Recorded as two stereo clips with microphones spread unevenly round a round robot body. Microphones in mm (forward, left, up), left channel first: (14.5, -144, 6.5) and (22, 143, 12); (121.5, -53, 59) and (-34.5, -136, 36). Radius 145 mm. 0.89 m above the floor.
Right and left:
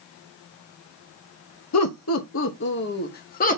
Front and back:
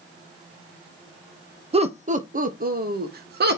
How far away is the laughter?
About 0.9 m.